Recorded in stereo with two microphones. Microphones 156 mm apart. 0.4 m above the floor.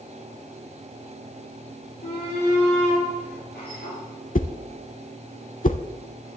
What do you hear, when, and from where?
2.0 s a shout: 75° left (ahead or behind), 8 m; by 4.0 s 80° left, 7.5 m
4.3 s a whoosh: 55° left (ahead or behind), 0.7 m